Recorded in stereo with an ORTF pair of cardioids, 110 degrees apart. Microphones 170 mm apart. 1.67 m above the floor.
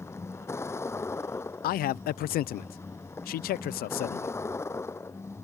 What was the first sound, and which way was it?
A vehicle, 15° left.